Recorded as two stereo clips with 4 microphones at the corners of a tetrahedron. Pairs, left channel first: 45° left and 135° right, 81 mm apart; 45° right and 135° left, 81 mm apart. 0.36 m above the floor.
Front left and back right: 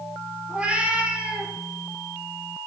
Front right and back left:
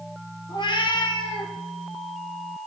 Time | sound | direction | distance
0.5 | a cat meowing | 60° right | 1.5 m